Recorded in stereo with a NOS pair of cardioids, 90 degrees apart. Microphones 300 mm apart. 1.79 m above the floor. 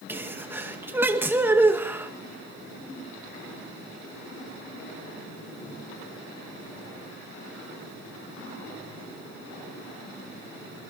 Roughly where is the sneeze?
Ahead.